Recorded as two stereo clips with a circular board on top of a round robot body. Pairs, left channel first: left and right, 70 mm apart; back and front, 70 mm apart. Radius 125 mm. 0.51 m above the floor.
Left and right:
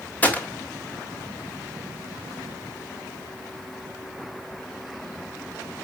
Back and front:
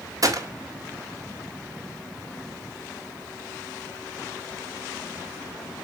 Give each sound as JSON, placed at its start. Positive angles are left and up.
{"t": 0.2, "sound": "a gunshot", "azimuth_deg": 25, "distance_m": 2.5}